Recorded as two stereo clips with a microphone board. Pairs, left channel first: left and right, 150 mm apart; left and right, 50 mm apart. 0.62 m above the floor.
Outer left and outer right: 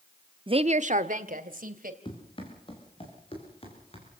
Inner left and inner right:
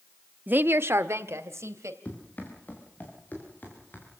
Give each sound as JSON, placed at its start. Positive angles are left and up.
{"t": 0.5, "sound": "a woman speaking", "side_deg": -35, "distance_m": 0.8}
{"t": 2.0, "sound": "running footsteps", "side_deg": 35, "distance_m": 7.0}